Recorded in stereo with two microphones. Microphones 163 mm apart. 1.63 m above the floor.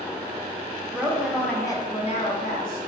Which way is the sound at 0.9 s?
15° right (ahead or behind).